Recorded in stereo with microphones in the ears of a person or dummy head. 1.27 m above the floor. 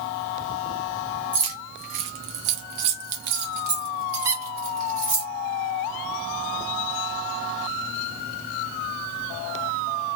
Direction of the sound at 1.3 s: 20° right (ahead or behind).